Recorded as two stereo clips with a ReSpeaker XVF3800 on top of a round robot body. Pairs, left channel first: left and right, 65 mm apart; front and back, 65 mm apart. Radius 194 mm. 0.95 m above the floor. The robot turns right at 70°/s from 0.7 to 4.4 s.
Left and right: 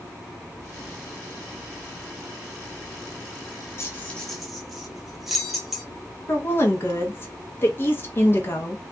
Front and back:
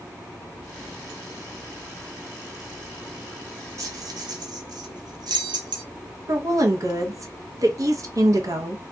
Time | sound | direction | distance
3.8 | keys jangling | 140° left | 0.7 m
6.3 | a woman speaking | 145° left | 0.9 m